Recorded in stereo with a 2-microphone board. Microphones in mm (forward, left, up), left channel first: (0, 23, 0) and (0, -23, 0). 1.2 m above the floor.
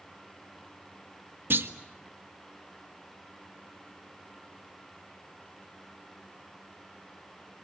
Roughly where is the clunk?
Right.